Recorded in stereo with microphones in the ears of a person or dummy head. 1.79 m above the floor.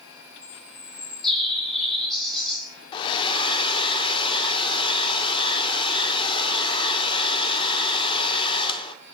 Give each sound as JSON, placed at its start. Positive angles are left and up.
{"t": 0.4, "sound": "a bird", "side_deg": 5, "distance_m": 0.8}
{"t": 2.9, "sound": "a hair dryer", "side_deg": 25, "distance_m": 0.5}